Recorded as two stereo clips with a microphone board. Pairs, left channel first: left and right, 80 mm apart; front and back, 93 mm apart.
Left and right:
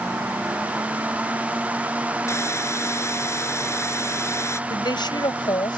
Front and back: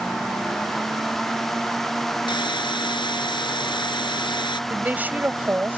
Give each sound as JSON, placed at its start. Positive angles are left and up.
{"t": 2.3, "sound": "a hiss", "azimuth_deg": 35}
{"t": 4.7, "sound": "a woman speaking", "azimuth_deg": 110}